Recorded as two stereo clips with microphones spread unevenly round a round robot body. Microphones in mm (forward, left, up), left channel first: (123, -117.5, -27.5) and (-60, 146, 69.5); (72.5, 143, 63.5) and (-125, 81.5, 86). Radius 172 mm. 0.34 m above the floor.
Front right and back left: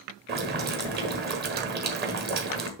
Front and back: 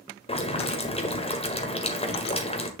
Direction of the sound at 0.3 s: 60° left.